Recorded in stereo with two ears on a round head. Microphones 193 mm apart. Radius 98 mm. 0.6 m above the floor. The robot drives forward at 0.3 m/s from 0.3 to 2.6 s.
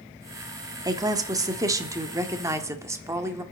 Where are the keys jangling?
No keys jangling in this recording.